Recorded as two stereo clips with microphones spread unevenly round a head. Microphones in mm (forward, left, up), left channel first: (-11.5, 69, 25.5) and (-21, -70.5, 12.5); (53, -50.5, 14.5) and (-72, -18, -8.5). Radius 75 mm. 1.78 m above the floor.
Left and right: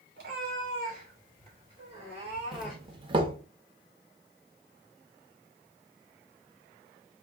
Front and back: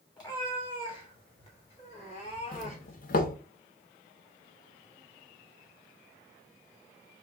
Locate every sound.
0.2 s a cat meowing: 65° right, 3 m; by 3.0 s 5° left, 2.5 m
2.5 s a doorbell: 35° right, 0.7 m